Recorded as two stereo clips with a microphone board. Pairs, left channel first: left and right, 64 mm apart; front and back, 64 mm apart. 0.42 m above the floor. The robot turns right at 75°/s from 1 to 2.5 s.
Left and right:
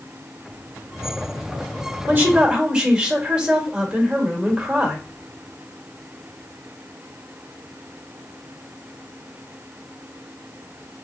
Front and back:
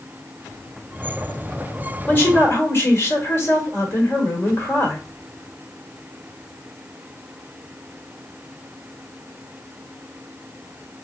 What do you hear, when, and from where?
2.1 s a woman speaking: 50° right, 1.3 m; by 5.0 s 20° right, 1.3 m